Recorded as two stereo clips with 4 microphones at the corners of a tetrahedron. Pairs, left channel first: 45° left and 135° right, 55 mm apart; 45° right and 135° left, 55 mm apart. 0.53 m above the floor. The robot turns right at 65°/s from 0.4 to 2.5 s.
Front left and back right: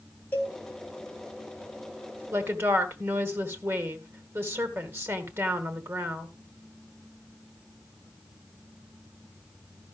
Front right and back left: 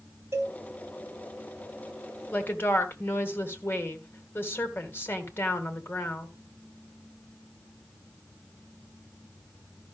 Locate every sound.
0.3 s a cowbell: 100° left, 3 m; by 0.6 s 110° left, 3 m
2.3 s a woman speaking: 105° right, 2 m; by 6.3 s 95° right, 2 m